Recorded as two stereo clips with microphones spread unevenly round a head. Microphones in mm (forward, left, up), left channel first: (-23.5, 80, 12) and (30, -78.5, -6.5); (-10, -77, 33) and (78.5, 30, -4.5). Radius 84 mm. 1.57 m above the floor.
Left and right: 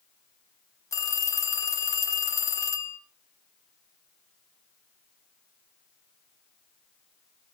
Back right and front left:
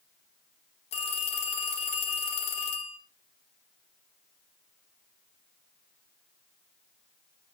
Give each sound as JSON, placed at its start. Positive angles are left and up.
{"t": 0.9, "sound": "a phone ringing", "azimuth_deg": 180, "distance_m": 1.5}